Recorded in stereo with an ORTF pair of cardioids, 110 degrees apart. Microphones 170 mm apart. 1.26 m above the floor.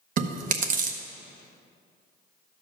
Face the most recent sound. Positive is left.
turn(degrees=-55)